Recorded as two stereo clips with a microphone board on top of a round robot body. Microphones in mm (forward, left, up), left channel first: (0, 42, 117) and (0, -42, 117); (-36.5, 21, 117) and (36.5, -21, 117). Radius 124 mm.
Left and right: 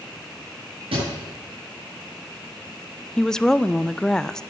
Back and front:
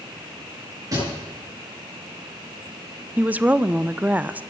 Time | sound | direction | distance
0.9 | a thud | 80° right | 7.5 m
3.2 | a woman speaking | 15° left | 0.6 m